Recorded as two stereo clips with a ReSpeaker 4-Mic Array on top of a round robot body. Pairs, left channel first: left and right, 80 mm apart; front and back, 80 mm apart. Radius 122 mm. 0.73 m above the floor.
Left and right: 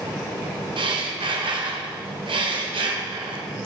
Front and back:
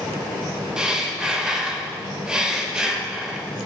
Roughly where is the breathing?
Right.